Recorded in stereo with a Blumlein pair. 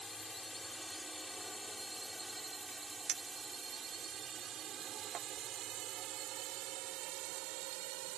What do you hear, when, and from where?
0.0 s a drone: 10° left; by 8.2 s 45° right
3.1 s a clink: 25° right